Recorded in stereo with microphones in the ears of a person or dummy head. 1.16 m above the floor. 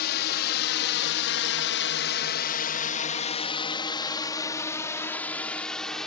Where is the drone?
55° left (ahead or behind); by 6.1 s centre (ahead or behind).